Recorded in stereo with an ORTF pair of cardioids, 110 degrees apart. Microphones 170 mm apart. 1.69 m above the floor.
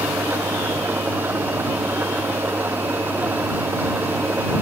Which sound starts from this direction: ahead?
An engine running, at 0.0 s.